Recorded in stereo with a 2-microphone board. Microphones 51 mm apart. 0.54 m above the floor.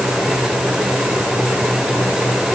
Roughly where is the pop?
No pop in this recording.